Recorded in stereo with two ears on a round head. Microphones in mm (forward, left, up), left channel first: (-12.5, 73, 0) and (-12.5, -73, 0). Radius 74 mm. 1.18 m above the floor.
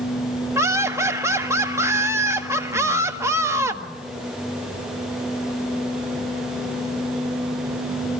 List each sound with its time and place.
0.6 s laughter: 15° right (ahead or behind), 1.6 m